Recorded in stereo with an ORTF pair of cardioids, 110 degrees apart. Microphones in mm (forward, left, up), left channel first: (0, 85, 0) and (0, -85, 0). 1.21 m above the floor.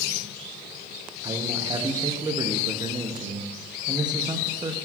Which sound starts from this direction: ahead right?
A man speaking, at 1.2 s.